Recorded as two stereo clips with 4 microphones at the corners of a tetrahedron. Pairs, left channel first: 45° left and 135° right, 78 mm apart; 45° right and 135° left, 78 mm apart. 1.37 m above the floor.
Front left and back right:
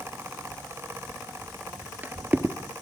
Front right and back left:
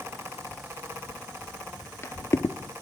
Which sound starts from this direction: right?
Footsteps, at 1.1 s.